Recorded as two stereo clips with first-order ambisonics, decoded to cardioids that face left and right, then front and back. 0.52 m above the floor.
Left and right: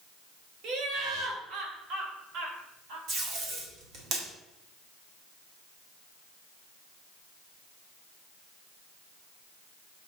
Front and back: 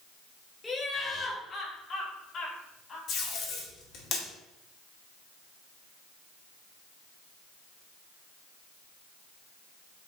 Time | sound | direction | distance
0.6 | laughter | 75° right | 1.8 m
3.1 | tape being pulled | 50° right | 2.5 m